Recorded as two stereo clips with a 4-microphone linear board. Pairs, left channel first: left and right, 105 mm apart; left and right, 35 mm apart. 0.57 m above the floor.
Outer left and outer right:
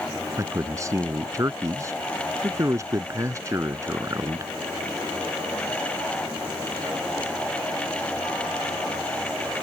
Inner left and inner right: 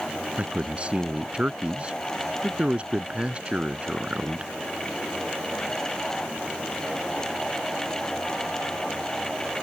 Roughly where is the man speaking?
Right.